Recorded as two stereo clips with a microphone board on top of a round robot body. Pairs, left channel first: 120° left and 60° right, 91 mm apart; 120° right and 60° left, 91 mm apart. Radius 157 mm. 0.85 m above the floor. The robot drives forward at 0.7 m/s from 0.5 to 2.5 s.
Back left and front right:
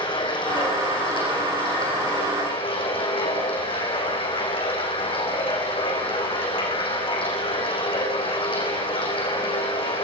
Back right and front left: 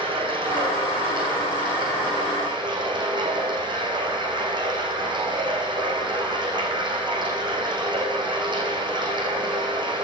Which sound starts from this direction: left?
Running water, at 0.0 s.